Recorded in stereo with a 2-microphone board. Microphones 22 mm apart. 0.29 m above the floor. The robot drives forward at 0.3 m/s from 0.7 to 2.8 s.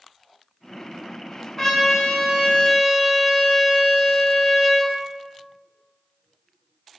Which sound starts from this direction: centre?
A trumpet, at 1.6 s.